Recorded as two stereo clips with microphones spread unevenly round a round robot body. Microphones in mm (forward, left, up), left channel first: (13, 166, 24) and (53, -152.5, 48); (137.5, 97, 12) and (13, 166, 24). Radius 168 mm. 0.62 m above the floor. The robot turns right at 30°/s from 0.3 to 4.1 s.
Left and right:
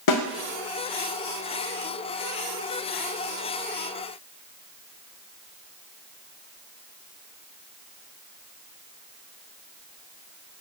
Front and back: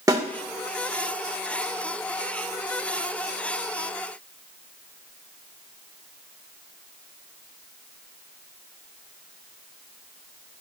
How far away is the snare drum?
About 2 m.